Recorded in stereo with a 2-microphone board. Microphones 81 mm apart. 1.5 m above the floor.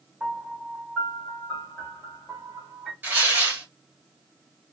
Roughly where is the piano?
Centre.